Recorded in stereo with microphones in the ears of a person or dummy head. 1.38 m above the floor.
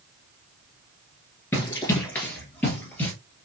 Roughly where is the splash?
No splash in this recording.